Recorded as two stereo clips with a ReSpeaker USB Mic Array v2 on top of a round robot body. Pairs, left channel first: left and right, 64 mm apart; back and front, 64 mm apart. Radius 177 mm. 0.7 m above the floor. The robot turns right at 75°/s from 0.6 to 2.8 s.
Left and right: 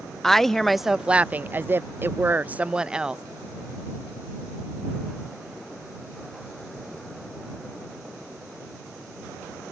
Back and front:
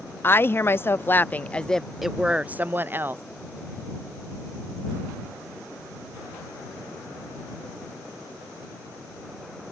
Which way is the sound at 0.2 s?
170° left.